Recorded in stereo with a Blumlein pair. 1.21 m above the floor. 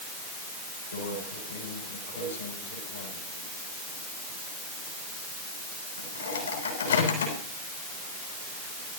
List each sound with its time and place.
0.9 s a microwave: 70° left, 8.5 m